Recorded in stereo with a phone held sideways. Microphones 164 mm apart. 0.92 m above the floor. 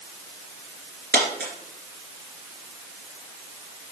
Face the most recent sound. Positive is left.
turn(degrees=-70)  # may be behind; listen again after turning